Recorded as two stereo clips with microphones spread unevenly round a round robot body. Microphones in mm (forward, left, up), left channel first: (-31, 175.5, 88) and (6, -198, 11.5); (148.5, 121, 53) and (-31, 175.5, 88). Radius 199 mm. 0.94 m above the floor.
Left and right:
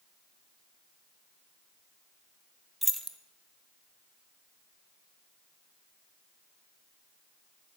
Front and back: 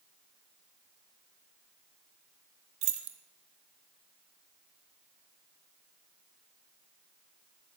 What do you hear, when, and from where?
2.8 s keys jangling: 175° right, 0.5 m